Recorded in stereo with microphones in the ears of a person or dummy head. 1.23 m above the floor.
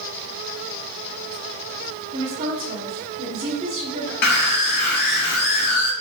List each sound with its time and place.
2.1 s a woman speaking: 45° right (ahead or behind), 2.5 m
4.2 s a scream: 55° left (ahead or behind), 1.2 m